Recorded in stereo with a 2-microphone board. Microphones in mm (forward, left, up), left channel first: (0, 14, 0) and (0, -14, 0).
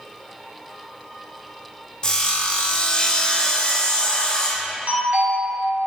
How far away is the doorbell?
About 2 m.